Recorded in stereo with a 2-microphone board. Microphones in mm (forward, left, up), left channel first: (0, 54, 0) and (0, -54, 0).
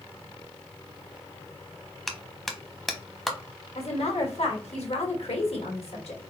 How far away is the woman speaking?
About 1.6 m.